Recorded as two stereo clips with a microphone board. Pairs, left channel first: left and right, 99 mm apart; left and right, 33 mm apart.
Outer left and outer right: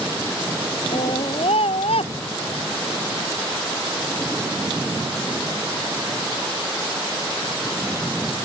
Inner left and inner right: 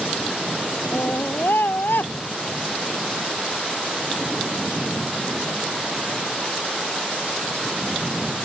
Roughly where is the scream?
Left.